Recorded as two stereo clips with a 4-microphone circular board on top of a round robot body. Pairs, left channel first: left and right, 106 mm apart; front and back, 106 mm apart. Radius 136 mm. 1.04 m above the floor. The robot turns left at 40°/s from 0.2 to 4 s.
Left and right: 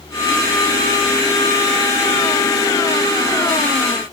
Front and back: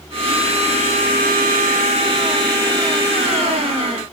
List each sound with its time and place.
Only background noise.